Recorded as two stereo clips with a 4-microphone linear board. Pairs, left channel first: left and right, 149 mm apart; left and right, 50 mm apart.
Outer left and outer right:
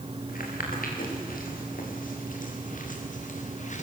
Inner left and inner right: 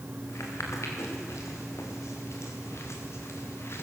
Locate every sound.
0.3 s footsteps: 75° left (ahead or behind), 6.5 m; by 3.8 s 55° left (ahead or behind), 3 m